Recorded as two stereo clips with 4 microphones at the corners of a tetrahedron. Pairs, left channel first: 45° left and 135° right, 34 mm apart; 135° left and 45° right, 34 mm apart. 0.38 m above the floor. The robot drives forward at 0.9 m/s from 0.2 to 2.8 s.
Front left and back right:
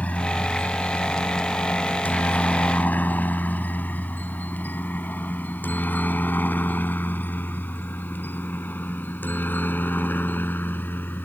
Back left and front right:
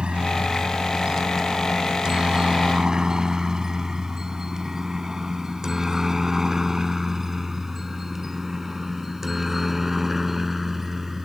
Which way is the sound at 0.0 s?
10° left.